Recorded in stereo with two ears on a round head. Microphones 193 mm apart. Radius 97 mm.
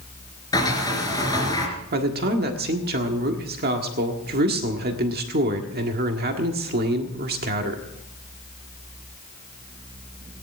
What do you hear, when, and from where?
0.5 s a sliding door: 15° left (ahead or behind), 3 m
1.9 s a man speaking: 45° right (ahead or behind), 1.6 m